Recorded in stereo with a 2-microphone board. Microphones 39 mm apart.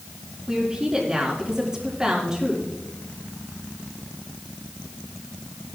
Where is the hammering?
I don't hear hammering.